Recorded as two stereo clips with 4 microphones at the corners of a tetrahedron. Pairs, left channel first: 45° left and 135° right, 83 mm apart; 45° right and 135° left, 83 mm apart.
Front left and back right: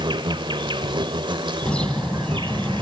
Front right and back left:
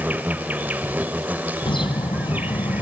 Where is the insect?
155° right, 1.1 m.